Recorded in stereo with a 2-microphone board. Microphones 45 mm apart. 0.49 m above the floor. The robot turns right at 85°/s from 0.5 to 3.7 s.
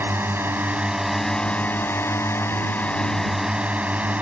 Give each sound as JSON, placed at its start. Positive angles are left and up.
{"t": 0.0, "sound": "a drone", "azimuth_deg": -60}